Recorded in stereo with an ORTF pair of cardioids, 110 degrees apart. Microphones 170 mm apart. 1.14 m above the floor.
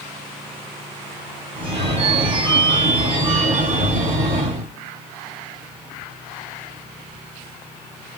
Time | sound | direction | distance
1.6 | a phone ringing | 40° right | 2.5 m